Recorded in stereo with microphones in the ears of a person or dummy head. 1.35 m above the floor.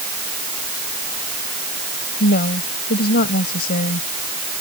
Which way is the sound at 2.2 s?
45° left (ahead or behind).